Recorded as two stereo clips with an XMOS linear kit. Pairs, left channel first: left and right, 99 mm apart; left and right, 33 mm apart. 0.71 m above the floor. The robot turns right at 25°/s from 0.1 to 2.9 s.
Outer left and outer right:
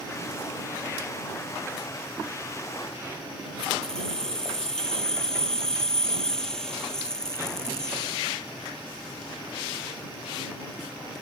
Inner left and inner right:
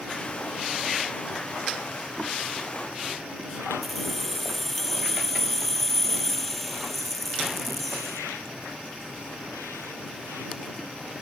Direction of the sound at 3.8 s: 5° left (ahead or behind).